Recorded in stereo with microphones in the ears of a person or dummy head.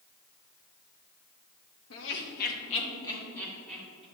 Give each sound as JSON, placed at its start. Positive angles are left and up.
{"t": 1.9, "sound": "laughter", "side_deg": 80, "distance_m": 1.4}